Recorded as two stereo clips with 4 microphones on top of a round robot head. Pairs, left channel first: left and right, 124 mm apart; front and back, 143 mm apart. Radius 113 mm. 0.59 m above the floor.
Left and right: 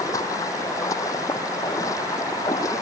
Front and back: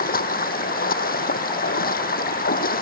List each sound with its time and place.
0.0 s running water: 20° left